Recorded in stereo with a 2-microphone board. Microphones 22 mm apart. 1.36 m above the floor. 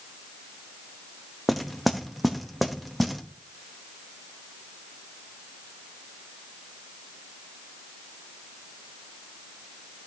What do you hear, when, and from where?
1.5 s knocking: centre (ahead or behind), 0.8 m